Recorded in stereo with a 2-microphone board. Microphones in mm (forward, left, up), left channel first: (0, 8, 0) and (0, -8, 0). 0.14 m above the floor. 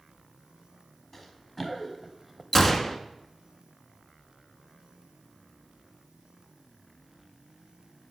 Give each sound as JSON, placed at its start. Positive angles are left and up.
{"t": 1.1, "sound": "running footsteps", "side_deg": 15, "distance_m": 1.9}
{"t": 2.5, "sound": "a gunshot", "side_deg": 20, "distance_m": 0.7}